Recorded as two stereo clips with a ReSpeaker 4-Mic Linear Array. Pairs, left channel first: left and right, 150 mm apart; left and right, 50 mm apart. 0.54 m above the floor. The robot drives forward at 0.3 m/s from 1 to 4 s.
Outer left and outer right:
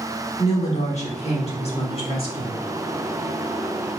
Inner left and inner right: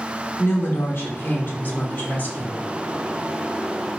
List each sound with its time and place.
0.4 s a woman speaking: 45° left (ahead or behind), 1.1 m; by 2.6 s 35° left (ahead or behind), 1.4 m